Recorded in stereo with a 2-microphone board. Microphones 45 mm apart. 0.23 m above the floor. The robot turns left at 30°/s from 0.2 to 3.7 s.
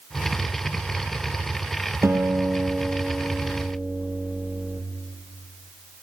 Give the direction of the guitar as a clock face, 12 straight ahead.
3 o'clock.